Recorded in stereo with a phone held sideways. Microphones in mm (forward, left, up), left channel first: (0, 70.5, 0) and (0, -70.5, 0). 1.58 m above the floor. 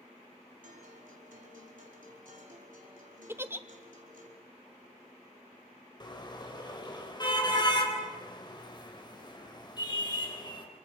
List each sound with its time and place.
0.6 s a guitar: 75° right (ahead or behind), 4.5 m
3.3 s a giggle: 15° right (ahead or behind), 0.8 m
6.0 s a car horn: 30° left (ahead or behind), 4 m